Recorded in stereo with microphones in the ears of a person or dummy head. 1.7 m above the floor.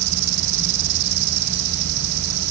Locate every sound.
0.0 s an insect: 50° right (ahead or behind)